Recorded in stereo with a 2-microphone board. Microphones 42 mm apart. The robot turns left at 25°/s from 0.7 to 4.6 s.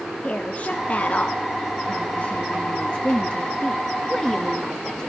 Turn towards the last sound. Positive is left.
turn(degrees=20)